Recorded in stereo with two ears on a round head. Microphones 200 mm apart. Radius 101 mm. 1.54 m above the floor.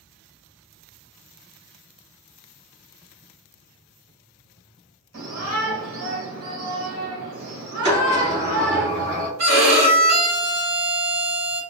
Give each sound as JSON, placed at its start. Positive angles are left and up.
{"t": 5.1, "sound": "a shout", "side_deg": -70, "distance_m": 1.9}
{"t": 7.8, "sound": "a sliding door", "side_deg": -55, "distance_m": 1.9}
{"t": 9.4, "sound": "a violin", "side_deg": -85, "distance_m": 1.6}